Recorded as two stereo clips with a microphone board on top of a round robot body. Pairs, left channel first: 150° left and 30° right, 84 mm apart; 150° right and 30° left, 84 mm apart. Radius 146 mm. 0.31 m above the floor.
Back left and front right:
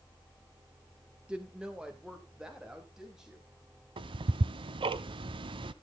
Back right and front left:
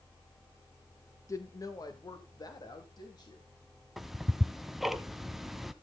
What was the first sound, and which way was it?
A woman speaking, 105° right.